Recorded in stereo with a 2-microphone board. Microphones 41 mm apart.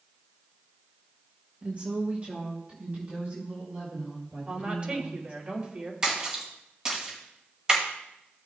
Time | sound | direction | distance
1.6 | a woman speaking | 30° right (ahead or behind) | 1.5 m
4.5 | a woman speaking | 30° right (ahead or behind) | 2.5 m
6.0 | a splash | 20° right (ahead or behind) | 2 m